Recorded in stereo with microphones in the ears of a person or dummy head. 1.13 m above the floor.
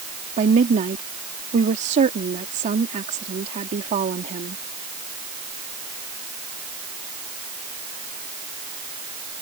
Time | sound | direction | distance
0.4 | a woman speaking | 40° right (ahead or behind) | ?